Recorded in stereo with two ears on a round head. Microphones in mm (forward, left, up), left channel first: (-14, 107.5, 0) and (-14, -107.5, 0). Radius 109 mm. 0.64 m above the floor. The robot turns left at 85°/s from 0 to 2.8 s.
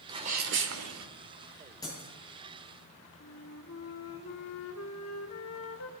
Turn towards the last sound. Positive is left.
turn(degrees=60)  # may be behind; listen again after turning